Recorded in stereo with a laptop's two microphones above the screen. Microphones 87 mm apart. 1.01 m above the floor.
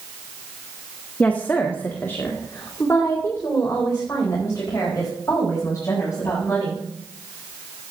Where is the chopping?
No chopping in this recording.